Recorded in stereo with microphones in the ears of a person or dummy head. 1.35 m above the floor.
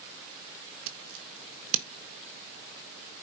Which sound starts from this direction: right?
Scissors, at 0.9 s.